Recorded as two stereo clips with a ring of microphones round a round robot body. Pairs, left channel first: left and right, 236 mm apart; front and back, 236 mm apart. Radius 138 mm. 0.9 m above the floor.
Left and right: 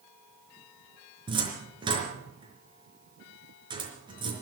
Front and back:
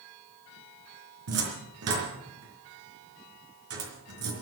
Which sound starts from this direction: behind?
A cupboard door, at 1.3 s.